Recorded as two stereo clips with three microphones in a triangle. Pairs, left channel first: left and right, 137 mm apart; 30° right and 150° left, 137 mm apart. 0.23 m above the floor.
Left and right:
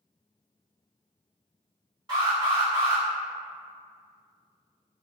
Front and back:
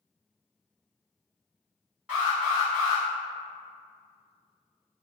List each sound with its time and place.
2.1 s an alarm: 130° right, 1.8 m